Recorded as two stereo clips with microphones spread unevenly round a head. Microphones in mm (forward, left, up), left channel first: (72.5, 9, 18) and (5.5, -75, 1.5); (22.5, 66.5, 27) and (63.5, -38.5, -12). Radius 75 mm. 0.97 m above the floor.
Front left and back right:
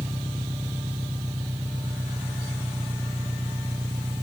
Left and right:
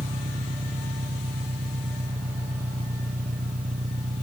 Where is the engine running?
65° right.